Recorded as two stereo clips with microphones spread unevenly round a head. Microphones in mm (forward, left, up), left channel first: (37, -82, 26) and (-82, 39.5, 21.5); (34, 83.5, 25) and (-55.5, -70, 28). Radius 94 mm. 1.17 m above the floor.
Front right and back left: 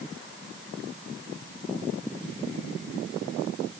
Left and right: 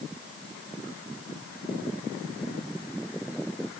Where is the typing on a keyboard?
No typing on a keyboard in this recording.